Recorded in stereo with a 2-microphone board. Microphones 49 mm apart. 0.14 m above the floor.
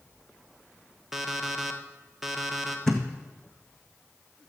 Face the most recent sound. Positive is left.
turn(degrees=10)  # may be behind; listen again after turning